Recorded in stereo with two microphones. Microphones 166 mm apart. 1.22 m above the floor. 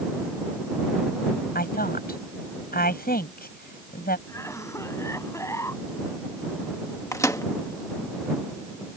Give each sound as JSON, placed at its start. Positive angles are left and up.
{"t": 1.6, "sound": "a woman speaking", "side_deg": 65}
{"t": 4.3, "sound": "a cough", "side_deg": 20}
{"t": 7.1, "sound": "a microwave", "side_deg": 20}